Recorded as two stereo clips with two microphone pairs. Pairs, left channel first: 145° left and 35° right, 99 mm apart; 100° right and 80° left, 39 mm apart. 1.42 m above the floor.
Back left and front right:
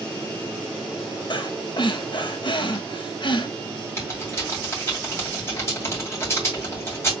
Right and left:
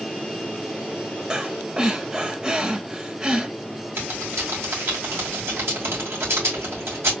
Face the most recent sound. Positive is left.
turn(degrees=80)